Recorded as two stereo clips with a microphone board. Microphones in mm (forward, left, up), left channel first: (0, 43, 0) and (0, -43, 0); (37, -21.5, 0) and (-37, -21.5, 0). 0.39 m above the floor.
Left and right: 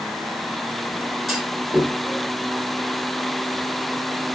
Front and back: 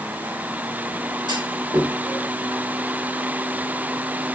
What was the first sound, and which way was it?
A clunk, straight behind.